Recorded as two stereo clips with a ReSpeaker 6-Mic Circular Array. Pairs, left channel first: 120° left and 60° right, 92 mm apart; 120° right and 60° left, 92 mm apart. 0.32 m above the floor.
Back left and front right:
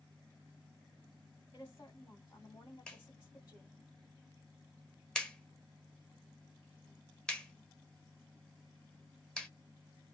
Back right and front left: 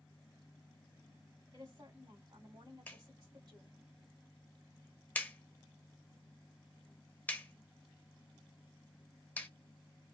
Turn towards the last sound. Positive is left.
turn(degrees=-170)